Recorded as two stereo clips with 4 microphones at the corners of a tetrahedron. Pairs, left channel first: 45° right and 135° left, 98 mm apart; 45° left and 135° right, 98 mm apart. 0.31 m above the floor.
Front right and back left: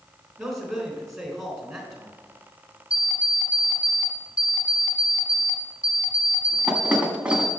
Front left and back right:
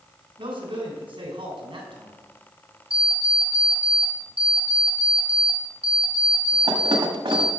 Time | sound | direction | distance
0.4 | a man speaking | 135° right | 3.5 m
2.9 | an alarm clock | 150° right | 1.4 m